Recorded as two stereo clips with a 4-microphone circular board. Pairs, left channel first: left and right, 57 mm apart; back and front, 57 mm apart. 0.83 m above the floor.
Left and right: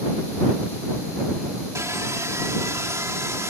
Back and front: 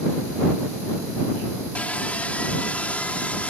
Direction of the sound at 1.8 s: 115° right.